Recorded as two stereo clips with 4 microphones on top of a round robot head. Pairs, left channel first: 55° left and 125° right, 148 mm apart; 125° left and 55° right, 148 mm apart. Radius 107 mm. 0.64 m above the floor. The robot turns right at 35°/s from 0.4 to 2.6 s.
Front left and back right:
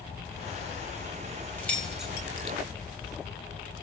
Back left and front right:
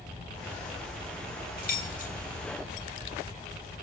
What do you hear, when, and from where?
1.6 s keys jangling: 135° left, 1.6 m; by 2.1 s 155° left, 1.6 m